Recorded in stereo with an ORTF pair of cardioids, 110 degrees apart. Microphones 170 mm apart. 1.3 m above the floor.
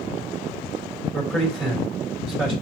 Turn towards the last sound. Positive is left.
turn(degrees=5)